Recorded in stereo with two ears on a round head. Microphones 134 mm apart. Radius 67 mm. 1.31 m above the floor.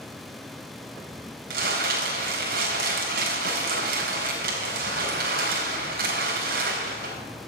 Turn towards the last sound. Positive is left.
turn(degrees=-70)  # may be behind; listen again after turning